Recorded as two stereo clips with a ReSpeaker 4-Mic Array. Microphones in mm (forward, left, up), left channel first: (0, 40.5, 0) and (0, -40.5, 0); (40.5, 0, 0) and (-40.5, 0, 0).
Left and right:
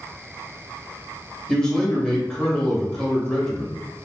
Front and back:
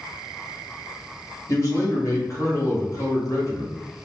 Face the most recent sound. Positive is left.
turn(degrees=10)